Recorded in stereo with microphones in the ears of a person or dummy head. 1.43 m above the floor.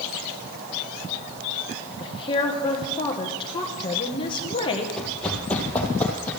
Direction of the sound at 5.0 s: 5° left (ahead or behind).